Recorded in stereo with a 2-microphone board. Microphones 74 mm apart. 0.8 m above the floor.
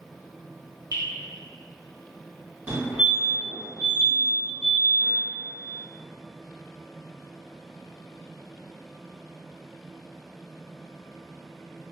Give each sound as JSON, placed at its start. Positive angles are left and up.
{"t": 0.9, "sound": "dripping", "side_deg": -55, "distance_m": 1.1}
{"t": 2.7, "sound": "a fire alarm", "side_deg": -25, "distance_m": 1.7}